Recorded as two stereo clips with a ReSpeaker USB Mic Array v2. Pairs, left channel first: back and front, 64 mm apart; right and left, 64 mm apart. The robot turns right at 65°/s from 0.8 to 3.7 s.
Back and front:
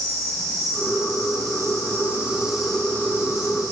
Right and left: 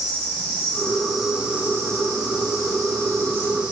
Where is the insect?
25° right, 4 m; by 3.7 s 160° left, 4 m.